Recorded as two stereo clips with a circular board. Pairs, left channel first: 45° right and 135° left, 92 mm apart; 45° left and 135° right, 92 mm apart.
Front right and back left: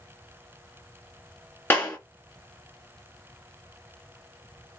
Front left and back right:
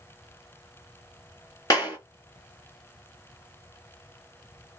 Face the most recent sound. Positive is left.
turn(degrees=15)